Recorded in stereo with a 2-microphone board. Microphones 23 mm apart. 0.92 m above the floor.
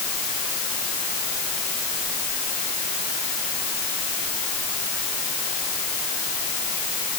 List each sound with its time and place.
Only background noise.